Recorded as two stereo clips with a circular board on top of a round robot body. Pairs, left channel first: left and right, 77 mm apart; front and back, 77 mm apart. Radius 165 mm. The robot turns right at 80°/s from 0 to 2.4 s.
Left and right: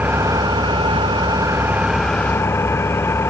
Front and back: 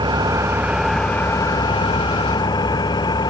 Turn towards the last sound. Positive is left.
turn(degrees=30)